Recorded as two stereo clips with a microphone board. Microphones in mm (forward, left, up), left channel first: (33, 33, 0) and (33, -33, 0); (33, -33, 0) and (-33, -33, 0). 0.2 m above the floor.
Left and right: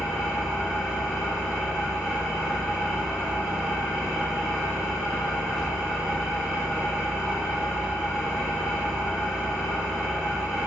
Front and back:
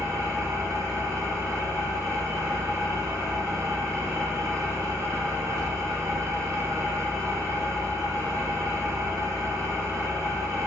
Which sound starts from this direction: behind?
An engine running, at 0.0 s.